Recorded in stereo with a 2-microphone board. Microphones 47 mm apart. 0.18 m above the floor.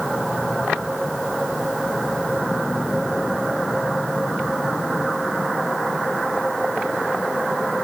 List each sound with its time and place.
Only background noise.